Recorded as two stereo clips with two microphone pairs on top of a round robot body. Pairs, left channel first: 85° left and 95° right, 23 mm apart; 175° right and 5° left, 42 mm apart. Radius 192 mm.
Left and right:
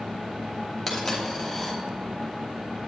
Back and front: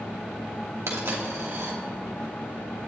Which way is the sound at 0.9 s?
Straight ahead.